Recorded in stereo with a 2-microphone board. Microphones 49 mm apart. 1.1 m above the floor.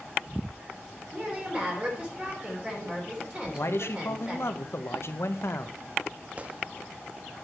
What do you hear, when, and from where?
1.1 s a woman speaking: 25° right (ahead or behind), 3 m
3.5 s a man speaking: 60° left (ahead or behind), 0.8 m
6.4 s a gunshot: 30° right (ahead or behind), 0.6 m